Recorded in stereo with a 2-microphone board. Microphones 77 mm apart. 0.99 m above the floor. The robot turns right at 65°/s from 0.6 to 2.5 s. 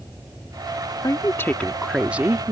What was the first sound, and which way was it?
A woman speaking, 125° left.